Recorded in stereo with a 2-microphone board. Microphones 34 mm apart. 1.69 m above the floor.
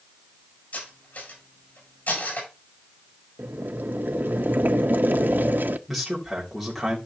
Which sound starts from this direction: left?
Cutlery clinking, at 0.7 s.